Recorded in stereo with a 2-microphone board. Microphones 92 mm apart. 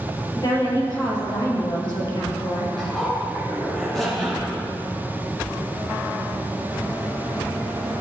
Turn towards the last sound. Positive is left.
turn(degrees=5)  # may be behind; listen again after turning